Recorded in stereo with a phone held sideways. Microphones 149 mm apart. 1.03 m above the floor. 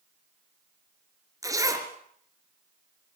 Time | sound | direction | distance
1.4 | a zipper | 20° right (ahead or behind) | 3 m